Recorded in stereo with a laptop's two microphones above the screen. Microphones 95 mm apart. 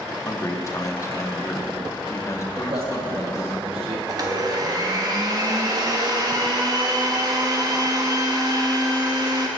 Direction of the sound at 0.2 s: 30° left (ahead or behind).